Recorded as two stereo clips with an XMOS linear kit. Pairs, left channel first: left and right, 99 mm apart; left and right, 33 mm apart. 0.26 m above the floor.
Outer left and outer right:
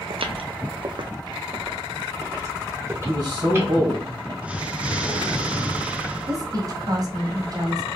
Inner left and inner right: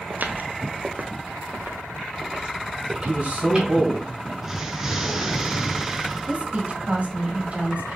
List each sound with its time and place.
0.1 s footsteps: 60° right (ahead or behind), 0.5 m; by 3.7 s 25° right (ahead or behind), 2 m
3.1 s a man speaking: 40° right (ahead or behind), 1.7 m
4.4 s an explosion: 15° right (ahead or behind), 0.7 m
6.3 s a woman speaking: 40° right (ahead or behind), 1.2 m